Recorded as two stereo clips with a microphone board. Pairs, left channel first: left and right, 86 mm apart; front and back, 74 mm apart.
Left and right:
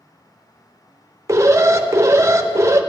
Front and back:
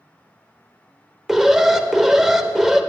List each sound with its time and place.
1.3 s an alarm: 100° right, 0.5 m